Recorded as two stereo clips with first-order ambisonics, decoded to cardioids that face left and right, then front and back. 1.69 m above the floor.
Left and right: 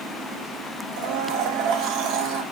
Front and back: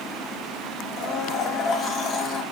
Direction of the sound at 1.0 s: 55° right.